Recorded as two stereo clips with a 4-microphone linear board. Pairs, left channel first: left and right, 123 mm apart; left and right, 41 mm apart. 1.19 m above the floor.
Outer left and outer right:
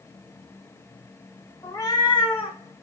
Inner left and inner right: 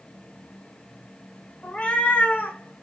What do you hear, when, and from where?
1.6 s a cat meowing: 20° left (ahead or behind), 0.9 m; by 2.8 s 55° left (ahead or behind), 1.5 m